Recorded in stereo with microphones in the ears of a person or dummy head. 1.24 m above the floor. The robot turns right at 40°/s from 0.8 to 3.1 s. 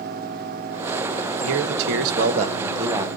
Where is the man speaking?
80° right, 1.2 m; by 3.1 s 15° right, 1.2 m.